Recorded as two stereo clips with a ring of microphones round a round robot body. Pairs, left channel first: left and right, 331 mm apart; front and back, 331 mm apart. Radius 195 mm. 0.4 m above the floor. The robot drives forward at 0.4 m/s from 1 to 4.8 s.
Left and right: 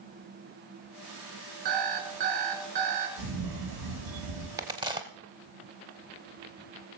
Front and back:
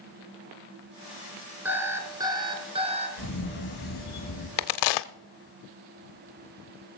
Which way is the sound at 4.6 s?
10° right.